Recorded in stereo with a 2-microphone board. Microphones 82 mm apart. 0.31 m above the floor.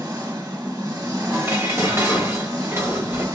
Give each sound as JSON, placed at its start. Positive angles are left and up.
{"t": 0.0, "sound": "an engine running", "side_deg": -50, "distance_m": 1.3}
{"t": 1.3, "sound": "dishes clattering", "side_deg": -35, "distance_m": 1.0}